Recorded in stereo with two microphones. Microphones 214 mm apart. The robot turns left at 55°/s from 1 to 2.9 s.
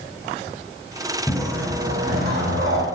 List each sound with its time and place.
1.3 s a whoosh: 10° left, 6 m; by 2.9 s 80° right, 6 m